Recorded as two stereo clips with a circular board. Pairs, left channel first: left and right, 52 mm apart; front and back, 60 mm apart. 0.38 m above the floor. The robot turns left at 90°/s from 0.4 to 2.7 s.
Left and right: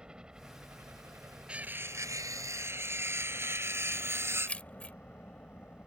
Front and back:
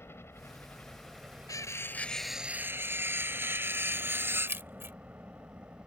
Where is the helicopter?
25° right; by 5.9 s 130° left.